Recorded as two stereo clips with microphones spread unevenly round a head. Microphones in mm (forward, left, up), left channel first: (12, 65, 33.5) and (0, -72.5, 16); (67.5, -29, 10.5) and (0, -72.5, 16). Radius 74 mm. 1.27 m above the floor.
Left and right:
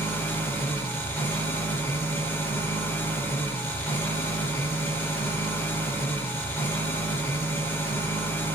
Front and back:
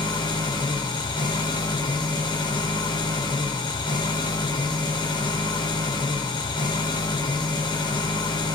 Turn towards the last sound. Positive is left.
turn(degrees=10)